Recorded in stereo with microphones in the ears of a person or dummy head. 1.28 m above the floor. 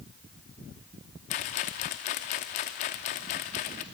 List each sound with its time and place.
1.3 s a rattle: 35° left (ahead or behind), 0.9 m